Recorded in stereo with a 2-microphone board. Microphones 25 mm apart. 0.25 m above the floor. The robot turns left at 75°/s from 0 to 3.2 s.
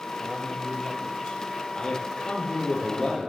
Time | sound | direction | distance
0.2 | a man speaking | 165° right | 1.3 m
1.8 | a man speaking | 140° left | 6.5 m